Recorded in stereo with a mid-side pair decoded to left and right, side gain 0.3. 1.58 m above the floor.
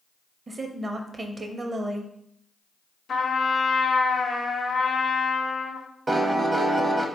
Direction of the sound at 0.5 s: 50° right.